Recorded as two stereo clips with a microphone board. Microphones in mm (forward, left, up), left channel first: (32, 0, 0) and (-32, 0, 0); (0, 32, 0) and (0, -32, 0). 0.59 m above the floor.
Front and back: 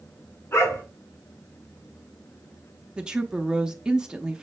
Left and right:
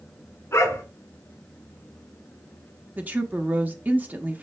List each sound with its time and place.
0.5 s a dog barking: 40° left, 2 m
3.0 s a woman speaking: 115° right, 0.7 m